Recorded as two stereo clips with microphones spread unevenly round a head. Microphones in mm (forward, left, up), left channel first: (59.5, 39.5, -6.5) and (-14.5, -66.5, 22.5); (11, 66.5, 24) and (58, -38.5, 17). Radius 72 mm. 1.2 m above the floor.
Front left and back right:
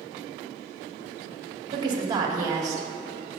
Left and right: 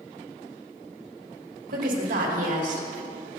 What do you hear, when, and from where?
1.7 s a woman speaking: 65° right, 2.5 m; by 2.9 s 55° right, 3 m